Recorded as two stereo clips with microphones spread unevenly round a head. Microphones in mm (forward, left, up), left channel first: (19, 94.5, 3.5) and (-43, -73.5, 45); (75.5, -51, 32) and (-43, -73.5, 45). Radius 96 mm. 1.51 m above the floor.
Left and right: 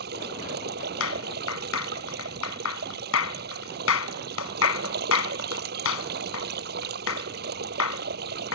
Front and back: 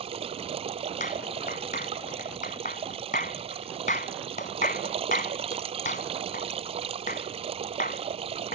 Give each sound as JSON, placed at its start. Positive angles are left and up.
{"t": 0.0, "sound": "running water", "azimuth_deg": -135}
{"t": 1.0, "sound": "a clap", "azimuth_deg": 60}